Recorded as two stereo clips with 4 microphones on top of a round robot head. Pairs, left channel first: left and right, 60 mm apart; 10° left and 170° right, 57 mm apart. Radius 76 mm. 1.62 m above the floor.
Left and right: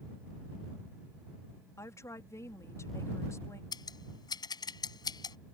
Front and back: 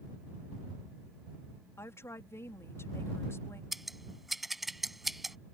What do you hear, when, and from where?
1.8 s a woman speaking: 50° left
3.7 s scissors: 100° left